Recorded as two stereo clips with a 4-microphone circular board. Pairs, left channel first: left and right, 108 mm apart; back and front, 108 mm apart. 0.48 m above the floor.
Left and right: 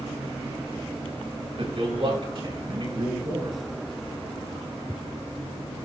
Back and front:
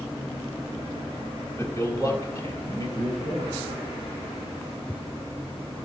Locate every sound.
1.6 s a man speaking: 120° right, 7 m; by 3.6 s 130° right, 7 m